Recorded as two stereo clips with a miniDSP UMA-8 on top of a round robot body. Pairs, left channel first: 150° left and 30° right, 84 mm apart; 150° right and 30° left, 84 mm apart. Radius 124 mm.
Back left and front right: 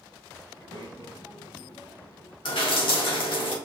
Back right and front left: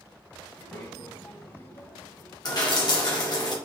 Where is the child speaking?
160° left, 3 m; by 2.4 s 165° left, 4.5 m.